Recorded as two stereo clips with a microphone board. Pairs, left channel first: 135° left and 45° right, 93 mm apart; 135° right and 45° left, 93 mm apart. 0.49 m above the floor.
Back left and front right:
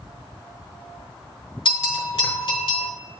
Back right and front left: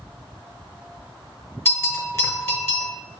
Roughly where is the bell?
Behind.